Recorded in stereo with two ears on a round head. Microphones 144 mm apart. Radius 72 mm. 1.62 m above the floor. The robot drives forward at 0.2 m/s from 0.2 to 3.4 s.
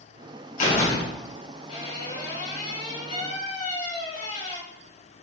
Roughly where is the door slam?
Left.